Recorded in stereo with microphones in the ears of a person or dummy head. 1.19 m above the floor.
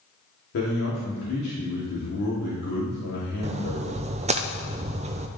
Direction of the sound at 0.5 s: 65° left (ahead or behind).